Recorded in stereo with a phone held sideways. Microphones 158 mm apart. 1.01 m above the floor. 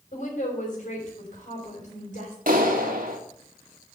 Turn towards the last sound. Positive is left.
turn(degrees=-60)  # may be behind; listen again after turning